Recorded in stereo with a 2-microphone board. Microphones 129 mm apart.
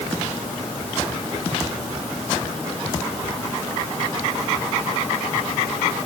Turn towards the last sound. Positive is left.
No sound to turn to.